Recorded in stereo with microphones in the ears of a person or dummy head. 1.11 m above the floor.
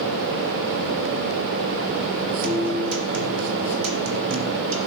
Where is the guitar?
65° right (ahead or behind), 2.5 m.